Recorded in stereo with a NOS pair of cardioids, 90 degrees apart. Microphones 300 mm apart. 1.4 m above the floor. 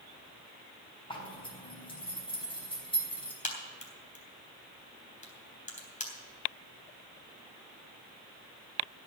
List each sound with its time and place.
1.1 s a zipper: 15° left, 4 m
3.4 s a crack: 25° left, 3.5 m